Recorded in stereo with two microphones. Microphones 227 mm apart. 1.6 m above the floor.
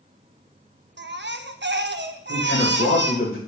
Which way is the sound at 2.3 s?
60° left (ahead or behind).